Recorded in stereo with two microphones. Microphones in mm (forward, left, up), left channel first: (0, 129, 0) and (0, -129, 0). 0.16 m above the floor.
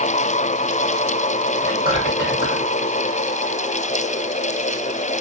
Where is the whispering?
35° right (ahead or behind), 1.8 m.